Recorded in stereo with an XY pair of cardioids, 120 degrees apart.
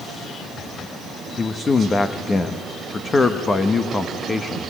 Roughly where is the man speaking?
Ahead left.